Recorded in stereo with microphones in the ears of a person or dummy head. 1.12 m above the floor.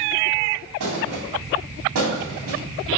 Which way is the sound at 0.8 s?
80° right.